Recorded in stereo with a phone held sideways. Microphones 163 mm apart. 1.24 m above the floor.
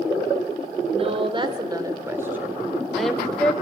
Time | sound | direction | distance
0.9 | a woman speaking | 40° right (ahead or behind) | 3.5 m